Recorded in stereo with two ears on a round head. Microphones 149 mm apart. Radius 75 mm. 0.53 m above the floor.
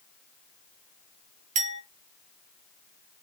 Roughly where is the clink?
Right.